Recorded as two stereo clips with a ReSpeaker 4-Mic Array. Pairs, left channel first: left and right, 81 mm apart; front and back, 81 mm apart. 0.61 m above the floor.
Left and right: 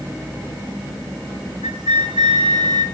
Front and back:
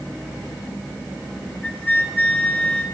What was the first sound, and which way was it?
A flute, 75° right.